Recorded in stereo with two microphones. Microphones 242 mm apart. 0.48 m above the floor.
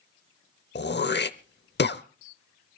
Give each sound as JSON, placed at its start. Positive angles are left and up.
{"t": 0.8, "sound": "throat clearing", "side_deg": 50, "distance_m": 0.7}